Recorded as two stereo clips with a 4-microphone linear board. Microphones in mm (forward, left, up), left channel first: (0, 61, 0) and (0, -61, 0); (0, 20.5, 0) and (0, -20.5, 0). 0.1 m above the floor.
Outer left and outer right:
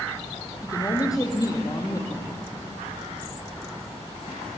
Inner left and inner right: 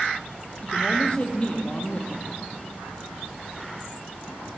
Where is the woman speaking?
30° left (ahead or behind), 3.5 m.